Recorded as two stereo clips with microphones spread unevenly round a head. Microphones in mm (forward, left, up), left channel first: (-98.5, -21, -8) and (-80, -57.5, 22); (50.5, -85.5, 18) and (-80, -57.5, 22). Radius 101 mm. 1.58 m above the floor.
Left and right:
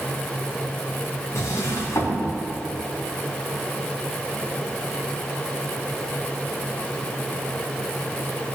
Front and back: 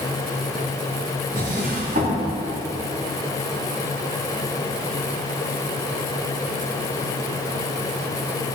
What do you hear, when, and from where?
1.4 s a drawer: 135° left, 3 m